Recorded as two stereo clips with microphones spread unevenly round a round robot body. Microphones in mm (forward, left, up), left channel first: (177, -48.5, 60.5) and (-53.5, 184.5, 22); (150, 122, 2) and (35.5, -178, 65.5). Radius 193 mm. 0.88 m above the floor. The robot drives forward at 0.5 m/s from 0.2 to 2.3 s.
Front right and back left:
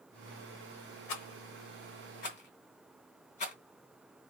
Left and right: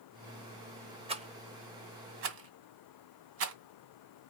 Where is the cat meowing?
I don't hear a cat meowing.